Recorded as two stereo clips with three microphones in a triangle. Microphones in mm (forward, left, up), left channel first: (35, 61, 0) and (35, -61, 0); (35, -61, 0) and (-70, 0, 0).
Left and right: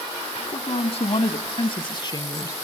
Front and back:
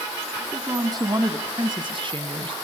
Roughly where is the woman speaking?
Left.